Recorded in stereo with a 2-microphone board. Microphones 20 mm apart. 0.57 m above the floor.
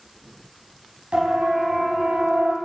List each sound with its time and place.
1.1 s a siren: 50° right (ahead or behind), 4 m; by 2.5 s 70° right (ahead or behind), 3 m